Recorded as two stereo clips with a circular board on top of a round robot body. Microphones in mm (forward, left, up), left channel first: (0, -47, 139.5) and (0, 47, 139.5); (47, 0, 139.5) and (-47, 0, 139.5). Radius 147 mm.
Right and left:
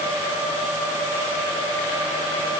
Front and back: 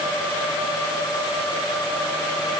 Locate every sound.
Only background noise.